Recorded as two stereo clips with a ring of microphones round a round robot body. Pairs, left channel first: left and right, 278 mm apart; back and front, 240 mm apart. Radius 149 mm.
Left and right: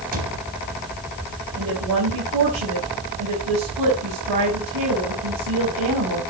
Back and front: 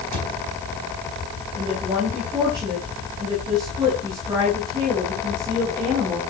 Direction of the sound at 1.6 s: 75° right.